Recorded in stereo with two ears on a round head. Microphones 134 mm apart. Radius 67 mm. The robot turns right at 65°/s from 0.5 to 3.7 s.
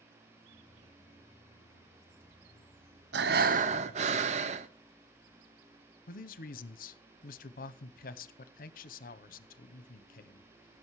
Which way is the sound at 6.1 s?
60° left (ahead or behind).